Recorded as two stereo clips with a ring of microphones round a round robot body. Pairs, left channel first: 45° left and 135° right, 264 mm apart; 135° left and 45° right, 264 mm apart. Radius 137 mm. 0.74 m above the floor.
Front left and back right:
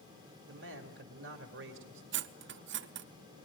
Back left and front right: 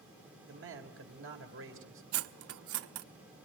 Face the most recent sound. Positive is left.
turn(degrees=-85)